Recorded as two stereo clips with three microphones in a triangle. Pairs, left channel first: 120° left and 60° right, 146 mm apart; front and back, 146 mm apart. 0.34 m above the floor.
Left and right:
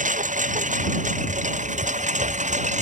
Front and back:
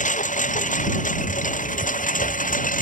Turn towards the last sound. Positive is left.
turn(degrees=-25)